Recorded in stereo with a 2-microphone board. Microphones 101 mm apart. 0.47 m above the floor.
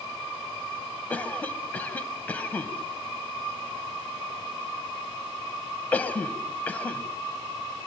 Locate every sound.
1.1 s a cough: 15° left (ahead or behind), 3.5 m